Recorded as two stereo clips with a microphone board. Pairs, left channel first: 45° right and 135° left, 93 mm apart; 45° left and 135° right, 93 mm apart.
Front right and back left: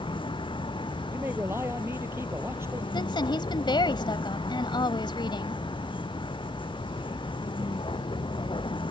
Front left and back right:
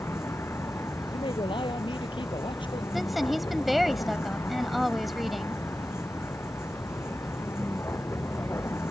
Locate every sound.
0.0 s a vehicle: 20° right
1.1 s a man speaking: 70° left
2.9 s a woman speaking: 45° right